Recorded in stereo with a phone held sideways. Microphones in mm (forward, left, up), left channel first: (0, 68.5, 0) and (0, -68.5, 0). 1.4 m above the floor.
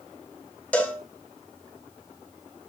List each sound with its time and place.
0.7 s a cowbell: 10° left (ahead or behind), 1.1 m